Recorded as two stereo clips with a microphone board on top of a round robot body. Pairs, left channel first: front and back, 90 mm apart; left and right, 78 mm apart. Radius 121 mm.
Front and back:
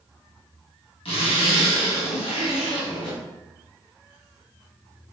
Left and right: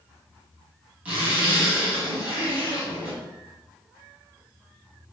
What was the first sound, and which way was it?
A zipper, 15° right.